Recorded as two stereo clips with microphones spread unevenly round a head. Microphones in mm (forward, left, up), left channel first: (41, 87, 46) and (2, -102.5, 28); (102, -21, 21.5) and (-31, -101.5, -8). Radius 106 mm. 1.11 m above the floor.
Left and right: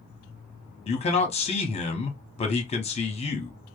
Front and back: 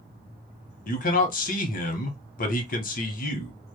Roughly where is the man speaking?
Ahead left.